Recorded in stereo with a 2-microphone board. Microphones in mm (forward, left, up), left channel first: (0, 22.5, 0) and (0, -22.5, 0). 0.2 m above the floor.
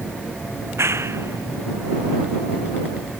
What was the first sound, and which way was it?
A clap, 80° right.